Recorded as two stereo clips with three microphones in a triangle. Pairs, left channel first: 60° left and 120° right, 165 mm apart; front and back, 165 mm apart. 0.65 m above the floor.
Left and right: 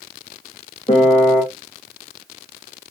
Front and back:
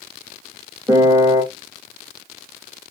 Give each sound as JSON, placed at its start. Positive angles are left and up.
{"t": 0.9, "sound": "a piano", "azimuth_deg": 110, "distance_m": 0.8}